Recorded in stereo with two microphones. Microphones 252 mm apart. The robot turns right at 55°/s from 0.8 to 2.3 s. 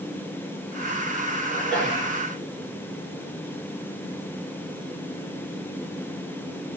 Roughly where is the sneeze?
Ahead.